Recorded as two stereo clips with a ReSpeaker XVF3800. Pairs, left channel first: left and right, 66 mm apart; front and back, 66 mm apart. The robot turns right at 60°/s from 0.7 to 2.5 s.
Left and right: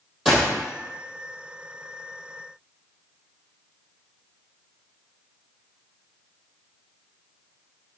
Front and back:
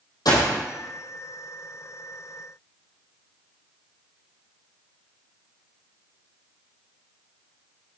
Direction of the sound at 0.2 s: 5° right.